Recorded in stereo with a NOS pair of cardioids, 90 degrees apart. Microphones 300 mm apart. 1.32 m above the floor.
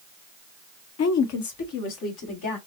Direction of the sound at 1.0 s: 60° left.